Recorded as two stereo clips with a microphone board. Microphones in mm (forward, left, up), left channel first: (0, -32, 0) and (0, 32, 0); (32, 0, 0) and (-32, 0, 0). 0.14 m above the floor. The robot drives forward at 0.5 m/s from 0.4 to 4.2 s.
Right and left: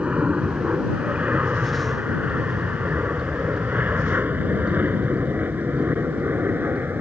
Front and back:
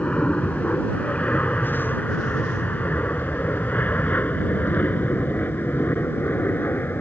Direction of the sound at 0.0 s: 45° left.